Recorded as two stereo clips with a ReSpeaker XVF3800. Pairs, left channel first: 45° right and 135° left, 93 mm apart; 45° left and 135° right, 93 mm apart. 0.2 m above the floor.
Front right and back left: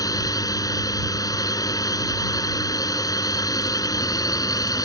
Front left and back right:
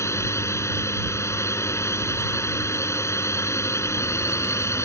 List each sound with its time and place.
0.0 s a drone: 5° right